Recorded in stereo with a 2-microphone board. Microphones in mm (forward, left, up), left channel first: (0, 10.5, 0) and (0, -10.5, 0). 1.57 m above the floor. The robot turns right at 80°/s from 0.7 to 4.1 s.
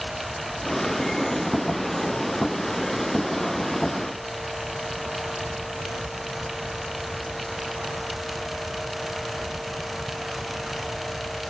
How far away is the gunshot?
I don't hear a gunshot.